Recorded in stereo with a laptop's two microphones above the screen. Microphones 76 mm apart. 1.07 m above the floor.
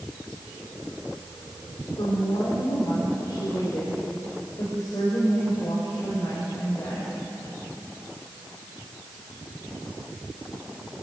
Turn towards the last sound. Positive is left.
turn(degrees=50)  # may be behind; listen again after turning